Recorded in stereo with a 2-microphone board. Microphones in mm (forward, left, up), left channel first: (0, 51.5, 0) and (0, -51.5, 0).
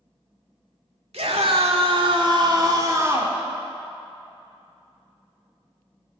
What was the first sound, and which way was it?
A scream, 80° right.